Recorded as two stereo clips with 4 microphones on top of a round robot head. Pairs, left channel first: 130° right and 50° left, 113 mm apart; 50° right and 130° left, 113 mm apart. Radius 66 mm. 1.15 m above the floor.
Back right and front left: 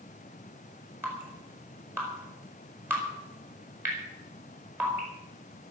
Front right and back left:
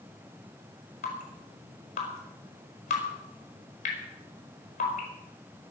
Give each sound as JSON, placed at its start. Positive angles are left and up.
{"t": 1.0, "sound": "dripping", "azimuth_deg": -25, "distance_m": 6.0}